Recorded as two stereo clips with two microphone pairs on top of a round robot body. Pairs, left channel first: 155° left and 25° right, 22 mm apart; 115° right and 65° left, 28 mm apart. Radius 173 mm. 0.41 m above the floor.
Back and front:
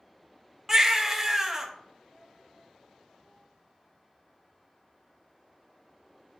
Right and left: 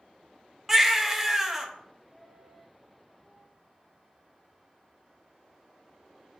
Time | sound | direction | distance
0.7 | a baby crying | 10° left | 0.7 m